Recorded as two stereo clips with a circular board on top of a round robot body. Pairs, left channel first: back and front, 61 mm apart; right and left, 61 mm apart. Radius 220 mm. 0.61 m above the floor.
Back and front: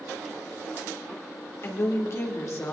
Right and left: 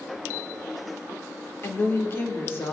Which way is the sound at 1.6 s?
140° right.